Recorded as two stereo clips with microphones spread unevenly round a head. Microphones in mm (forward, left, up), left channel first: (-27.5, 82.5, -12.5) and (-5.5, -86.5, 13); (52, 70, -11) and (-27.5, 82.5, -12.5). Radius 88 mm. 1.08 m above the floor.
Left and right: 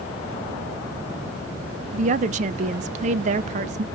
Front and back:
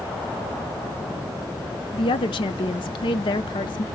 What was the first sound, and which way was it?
A woman speaking, 30° right.